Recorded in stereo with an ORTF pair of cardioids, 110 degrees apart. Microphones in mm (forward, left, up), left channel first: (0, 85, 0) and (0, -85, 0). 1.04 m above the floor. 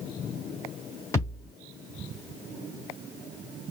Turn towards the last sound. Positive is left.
turn(degrees=15)